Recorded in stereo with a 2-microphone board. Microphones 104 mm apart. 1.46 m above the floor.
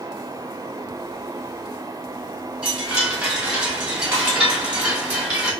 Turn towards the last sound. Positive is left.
turn(degrees=-10)  # may be behind; listen again after turning